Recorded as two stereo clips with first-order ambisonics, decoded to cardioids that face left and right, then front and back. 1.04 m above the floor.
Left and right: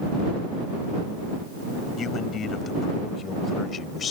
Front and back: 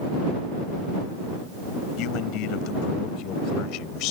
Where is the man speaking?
30° left; by 4.1 s 25° left.